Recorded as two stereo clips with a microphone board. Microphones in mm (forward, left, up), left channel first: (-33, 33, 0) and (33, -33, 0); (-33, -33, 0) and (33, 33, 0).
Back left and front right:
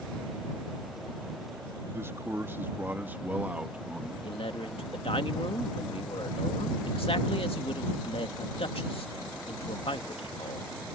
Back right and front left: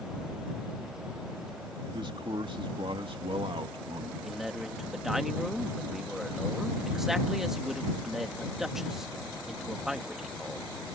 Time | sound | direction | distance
1.9 | a man speaking | 20° left | ?
4.2 | a man speaking | 130° left | ?